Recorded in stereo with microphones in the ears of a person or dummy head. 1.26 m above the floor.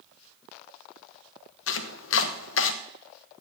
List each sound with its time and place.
1.7 s chopping: 70° left (ahead or behind), 1.0 m